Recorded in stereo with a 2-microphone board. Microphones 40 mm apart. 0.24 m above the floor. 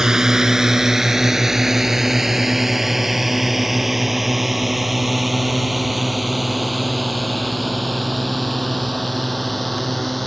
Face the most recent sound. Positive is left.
turn(degrees=5)  # may be behind; listen again after turning